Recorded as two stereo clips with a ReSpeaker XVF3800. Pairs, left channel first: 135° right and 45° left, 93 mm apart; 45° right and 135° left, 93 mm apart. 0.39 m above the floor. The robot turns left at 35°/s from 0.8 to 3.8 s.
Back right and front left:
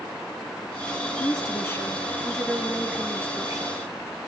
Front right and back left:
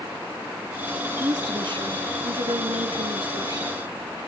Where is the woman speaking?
Straight behind, 6.5 m; by 3.8 s 90° left, 6.5 m.